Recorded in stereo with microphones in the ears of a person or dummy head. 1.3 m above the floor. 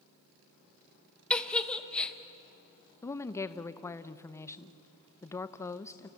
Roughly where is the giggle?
Centre.